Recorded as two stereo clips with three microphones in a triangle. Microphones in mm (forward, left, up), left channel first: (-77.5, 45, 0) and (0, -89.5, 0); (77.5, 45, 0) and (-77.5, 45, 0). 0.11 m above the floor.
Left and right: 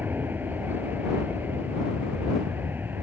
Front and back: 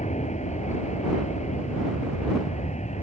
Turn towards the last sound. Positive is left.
turn(degrees=15)